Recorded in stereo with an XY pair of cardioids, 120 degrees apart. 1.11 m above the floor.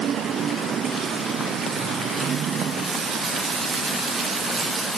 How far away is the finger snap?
I don't hear a finger snap.